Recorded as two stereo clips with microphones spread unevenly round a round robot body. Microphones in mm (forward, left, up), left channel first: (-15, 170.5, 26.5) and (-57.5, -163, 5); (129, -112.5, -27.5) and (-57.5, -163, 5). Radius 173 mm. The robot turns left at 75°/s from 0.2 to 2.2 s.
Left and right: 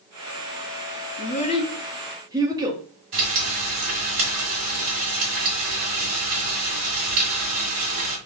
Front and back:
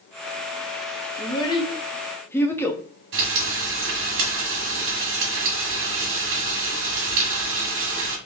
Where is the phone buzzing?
No phone buzzing in this recording.